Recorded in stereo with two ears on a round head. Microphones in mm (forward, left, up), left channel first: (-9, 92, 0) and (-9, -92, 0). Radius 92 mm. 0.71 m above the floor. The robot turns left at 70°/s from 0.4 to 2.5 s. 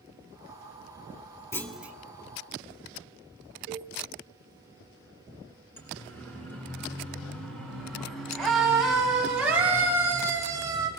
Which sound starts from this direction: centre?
A siren, at 5.8 s.